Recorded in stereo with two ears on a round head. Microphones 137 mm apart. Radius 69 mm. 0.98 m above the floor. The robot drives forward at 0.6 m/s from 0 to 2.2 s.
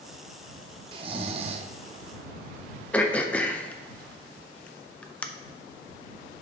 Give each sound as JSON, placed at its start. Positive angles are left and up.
{"t": 0.9, "sound": "snoring", "side_deg": -30, "distance_m": 0.6}
{"t": 2.9, "sound": "throat clearing", "side_deg": 10, "distance_m": 0.5}